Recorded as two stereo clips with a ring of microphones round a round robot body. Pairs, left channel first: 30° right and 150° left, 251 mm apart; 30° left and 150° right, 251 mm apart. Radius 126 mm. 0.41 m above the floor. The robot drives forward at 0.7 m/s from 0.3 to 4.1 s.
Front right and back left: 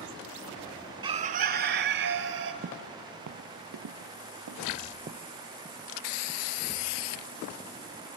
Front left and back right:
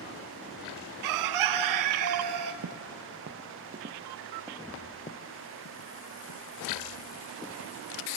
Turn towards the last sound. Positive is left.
turn(degrees=45)